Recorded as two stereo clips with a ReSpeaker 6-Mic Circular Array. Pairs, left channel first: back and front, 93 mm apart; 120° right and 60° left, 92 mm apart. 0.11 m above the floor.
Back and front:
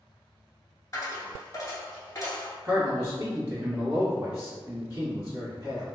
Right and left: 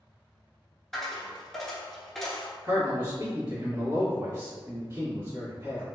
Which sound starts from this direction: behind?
A dropped coin, at 0.9 s.